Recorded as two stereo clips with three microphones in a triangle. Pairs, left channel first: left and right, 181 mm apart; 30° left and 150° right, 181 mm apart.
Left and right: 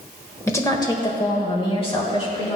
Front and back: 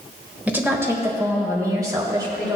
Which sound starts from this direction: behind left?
A woman speaking, at 0.5 s.